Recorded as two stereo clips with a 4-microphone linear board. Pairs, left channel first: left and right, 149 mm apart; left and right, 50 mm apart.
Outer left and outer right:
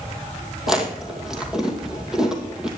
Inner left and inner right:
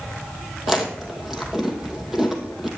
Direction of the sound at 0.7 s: 5° right (ahead or behind).